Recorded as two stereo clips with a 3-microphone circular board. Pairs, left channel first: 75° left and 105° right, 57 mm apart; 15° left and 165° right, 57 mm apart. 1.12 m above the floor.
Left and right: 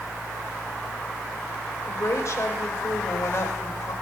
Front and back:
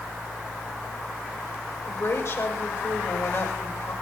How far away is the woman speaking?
About 5 m.